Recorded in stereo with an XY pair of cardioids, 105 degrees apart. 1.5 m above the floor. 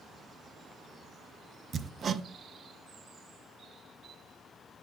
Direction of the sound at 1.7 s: 40° right.